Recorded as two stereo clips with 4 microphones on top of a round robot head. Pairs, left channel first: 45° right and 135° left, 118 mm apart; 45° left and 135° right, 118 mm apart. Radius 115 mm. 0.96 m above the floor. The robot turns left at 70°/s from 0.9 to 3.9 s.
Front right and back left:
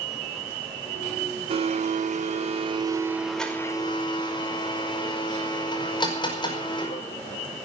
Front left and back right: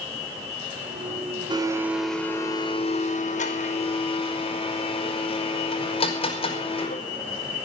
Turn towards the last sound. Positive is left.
turn(degrees=5)